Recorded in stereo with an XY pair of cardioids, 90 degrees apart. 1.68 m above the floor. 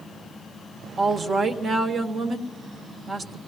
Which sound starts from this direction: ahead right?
A woman speaking, at 1.0 s.